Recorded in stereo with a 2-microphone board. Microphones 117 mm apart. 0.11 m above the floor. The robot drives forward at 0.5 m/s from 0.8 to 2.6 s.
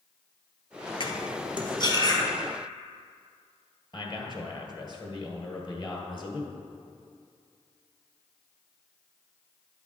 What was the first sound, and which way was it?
Cutlery clinking, 45° left (ahead or behind).